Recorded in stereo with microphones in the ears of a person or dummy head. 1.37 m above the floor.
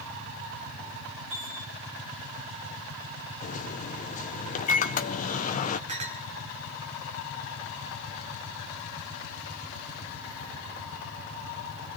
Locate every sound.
1.3 s a chime: 85° right, 8 m
3.4 s a microwave: 40° left (ahead or behind), 0.6 m
5.9 s a clink: 35° right (ahead or behind), 1.2 m